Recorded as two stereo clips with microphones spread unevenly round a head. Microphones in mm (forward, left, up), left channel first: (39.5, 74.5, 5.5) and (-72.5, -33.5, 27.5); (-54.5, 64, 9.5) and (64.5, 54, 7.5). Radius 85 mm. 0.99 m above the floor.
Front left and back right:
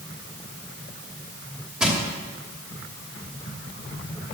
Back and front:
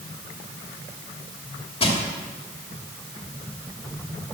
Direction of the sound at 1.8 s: 140° left.